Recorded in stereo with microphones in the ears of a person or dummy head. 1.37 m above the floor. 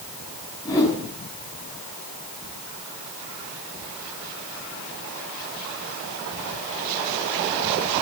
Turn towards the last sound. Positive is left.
turn(degrees=20)  # may be behind; listen again after turning